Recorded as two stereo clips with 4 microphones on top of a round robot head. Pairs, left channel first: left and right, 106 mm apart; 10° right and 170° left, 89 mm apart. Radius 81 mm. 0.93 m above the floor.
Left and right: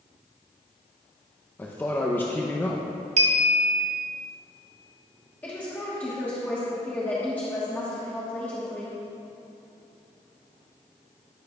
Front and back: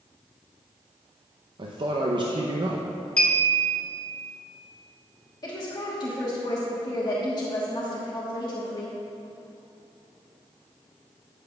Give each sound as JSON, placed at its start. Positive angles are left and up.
{"t": 1.6, "sound": "a man speaking", "azimuth_deg": 160, "distance_m": 0.7}
{"t": 3.2, "sound": "a clink", "azimuth_deg": -90, "distance_m": 0.7}
{"t": 5.4, "sound": "a woman speaking", "azimuth_deg": 15, "distance_m": 1.2}